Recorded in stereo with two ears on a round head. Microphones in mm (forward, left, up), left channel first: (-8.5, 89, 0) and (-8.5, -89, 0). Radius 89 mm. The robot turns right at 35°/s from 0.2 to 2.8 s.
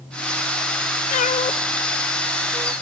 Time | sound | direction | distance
1.1 | a cat meowing | 40° left (ahead or behind) | 0.6 m